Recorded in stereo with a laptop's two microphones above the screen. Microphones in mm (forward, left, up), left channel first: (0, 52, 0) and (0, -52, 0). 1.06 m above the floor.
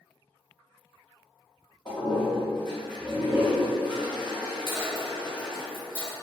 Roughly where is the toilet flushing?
Left.